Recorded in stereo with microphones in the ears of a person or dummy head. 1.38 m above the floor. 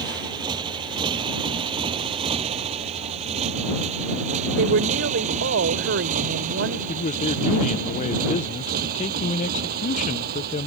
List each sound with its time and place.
0.0 s a motorcycle: 30° right (ahead or behind); by 10.7 s 60° right (ahead or behind)
4.6 s a woman speaking: 65° right (ahead or behind)
6.9 s a man speaking: 35° left (ahead or behind)